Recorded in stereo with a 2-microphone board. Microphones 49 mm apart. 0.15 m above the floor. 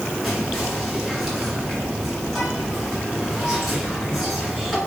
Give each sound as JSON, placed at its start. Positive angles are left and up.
{"t": 0.2, "sound": "whispering", "side_deg": -5, "distance_m": 2.0}